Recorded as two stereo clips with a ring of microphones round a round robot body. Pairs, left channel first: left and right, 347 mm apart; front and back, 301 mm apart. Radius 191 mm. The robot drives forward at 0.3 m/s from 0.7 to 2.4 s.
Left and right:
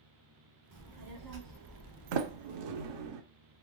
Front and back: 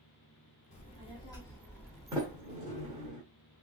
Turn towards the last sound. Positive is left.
turn(degrees=-110)